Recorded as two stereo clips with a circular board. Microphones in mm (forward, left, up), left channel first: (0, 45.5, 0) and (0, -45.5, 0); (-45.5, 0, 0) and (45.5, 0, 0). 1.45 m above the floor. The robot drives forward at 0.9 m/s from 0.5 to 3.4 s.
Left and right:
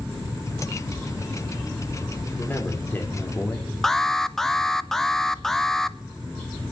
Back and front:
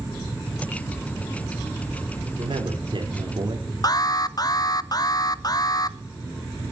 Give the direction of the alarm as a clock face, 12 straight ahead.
6 o'clock.